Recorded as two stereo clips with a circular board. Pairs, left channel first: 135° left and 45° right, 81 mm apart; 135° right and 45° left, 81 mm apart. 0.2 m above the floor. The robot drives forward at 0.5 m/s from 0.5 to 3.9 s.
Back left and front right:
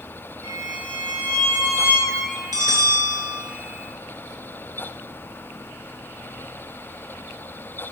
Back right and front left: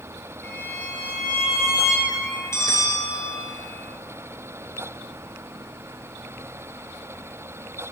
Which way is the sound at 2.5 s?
85° right.